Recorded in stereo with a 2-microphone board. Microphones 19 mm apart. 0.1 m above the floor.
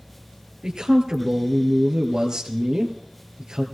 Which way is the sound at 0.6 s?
40° right (ahead or behind).